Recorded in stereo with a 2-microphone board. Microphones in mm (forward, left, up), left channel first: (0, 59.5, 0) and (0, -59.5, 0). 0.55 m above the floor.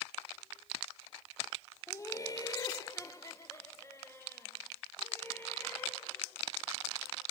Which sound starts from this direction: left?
Laughter, at 1.9 s.